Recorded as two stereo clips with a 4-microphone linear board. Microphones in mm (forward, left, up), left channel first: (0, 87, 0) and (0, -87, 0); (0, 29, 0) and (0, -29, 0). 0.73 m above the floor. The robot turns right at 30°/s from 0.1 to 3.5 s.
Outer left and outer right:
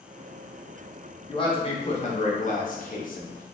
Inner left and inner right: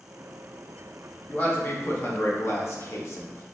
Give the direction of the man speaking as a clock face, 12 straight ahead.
11 o'clock.